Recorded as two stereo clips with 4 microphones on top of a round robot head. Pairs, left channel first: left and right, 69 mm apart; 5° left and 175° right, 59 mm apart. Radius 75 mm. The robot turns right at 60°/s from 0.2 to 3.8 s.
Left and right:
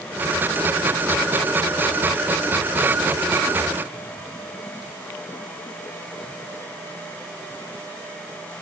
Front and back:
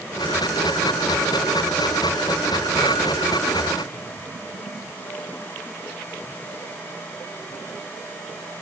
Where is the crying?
I don't hear crying.